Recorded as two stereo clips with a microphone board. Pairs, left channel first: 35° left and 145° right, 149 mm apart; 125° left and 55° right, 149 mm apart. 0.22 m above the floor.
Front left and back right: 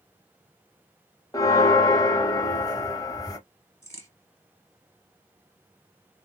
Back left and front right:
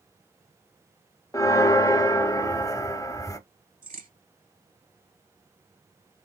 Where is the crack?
35° right, 2.5 m.